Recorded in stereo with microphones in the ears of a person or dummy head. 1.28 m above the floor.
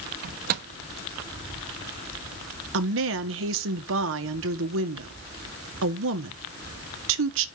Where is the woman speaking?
65° right (ahead or behind), 1.4 m.